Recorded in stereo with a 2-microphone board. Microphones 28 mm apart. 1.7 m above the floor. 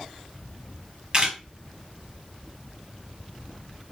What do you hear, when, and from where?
1.1 s a camera shutter: 30° right (ahead or behind), 0.9 m